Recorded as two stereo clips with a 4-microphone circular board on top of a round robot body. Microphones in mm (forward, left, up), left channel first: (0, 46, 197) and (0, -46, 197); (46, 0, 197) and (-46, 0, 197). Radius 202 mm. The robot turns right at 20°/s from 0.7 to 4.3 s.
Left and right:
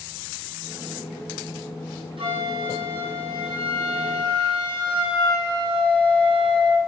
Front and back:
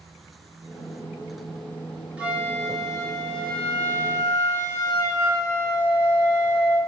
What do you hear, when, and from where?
2.2 s a flute: 105° right, 5 m; by 6.8 s 65° right, 5 m